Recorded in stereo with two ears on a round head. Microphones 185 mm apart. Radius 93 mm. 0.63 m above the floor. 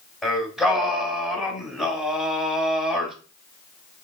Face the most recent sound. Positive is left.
turn(degrees=0)  # may be behind; listen again after turning